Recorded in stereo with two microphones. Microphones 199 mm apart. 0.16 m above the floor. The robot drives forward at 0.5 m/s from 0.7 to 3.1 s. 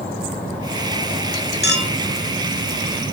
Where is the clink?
55° left (ahead or behind), 2 m; by 1.9 s 50° left (ahead or behind), 2 m.